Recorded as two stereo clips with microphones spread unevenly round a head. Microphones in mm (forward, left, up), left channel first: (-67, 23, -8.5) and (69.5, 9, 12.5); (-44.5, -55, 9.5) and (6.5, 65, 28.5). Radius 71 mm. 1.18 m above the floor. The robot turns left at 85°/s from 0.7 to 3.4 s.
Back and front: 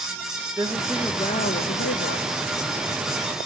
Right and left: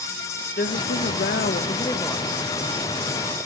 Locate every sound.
0.6 s a woman speaking: 80° right, 0.8 m; by 2.3 s 150° left, 0.8 m